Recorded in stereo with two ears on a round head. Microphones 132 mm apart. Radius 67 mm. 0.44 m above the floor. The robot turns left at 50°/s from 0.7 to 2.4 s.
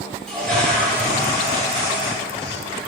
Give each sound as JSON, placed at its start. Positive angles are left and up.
{"t": 0.3, "sound": "a toilet flushing", "azimuth_deg": 170, "distance_m": 0.8}